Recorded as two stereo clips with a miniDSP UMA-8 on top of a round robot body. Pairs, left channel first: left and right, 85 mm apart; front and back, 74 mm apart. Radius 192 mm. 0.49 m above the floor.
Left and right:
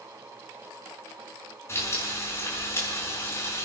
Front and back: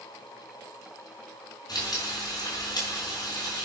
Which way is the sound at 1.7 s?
30° left.